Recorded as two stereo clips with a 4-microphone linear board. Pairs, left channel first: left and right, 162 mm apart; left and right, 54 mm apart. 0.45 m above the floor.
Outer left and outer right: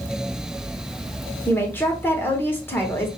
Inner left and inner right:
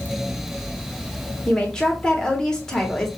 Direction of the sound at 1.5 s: 15° left (ahead or behind).